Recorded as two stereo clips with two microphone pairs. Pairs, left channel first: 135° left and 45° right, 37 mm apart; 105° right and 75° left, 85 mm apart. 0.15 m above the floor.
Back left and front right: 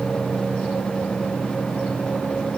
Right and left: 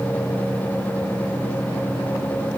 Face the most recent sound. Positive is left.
No sound to turn to.